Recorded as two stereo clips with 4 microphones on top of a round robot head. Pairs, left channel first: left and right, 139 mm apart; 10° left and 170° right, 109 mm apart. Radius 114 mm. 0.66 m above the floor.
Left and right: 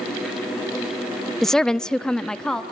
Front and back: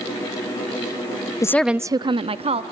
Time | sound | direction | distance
1.4 | a woman speaking | 5° left | 0.6 m